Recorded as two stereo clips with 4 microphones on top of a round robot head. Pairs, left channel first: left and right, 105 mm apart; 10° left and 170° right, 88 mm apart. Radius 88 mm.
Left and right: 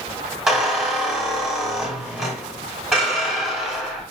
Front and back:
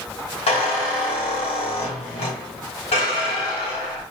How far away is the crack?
I don't hear a crack.